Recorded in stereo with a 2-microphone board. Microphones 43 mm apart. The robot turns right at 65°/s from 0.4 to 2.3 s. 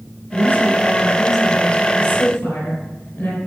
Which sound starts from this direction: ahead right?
A woman speaking, at 0.3 s.